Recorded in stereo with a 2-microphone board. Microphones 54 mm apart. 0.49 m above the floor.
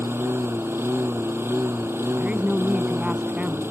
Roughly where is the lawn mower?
Right.